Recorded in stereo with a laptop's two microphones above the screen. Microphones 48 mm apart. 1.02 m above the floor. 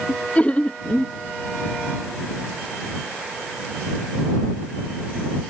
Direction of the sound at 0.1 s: 30° left (ahead or behind).